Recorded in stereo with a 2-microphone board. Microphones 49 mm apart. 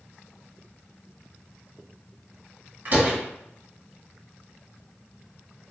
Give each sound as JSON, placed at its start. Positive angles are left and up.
{"t": 2.9, "sound": "a door slam", "side_deg": -40, "distance_m": 1.4}